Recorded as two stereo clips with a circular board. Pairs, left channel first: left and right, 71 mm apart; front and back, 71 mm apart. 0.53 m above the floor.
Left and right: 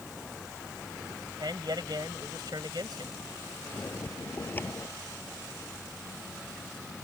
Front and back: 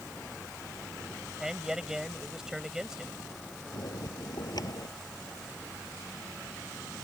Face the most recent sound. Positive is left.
turn(degrees=25)